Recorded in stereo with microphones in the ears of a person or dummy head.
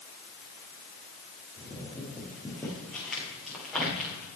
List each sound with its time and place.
1.6 s footsteps: 10° left (ahead or behind), 5 m; by 4.3 s centre (ahead or behind), 6 m